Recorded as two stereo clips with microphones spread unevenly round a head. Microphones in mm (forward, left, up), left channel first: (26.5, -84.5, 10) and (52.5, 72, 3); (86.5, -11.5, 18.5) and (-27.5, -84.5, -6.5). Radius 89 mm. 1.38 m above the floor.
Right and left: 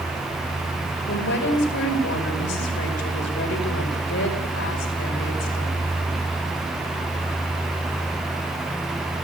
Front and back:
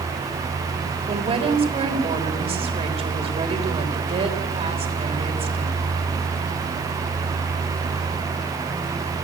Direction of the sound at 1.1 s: 100° right.